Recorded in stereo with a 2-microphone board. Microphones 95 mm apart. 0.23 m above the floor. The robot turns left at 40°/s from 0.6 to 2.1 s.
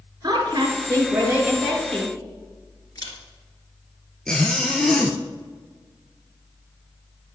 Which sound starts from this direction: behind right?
A woman speaking, at 0.2 s.